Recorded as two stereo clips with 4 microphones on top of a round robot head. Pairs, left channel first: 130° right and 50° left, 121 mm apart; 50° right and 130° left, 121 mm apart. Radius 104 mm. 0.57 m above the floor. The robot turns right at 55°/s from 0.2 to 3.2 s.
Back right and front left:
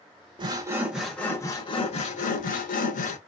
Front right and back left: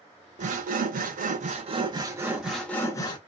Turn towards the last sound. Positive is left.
turn(degrees=-100)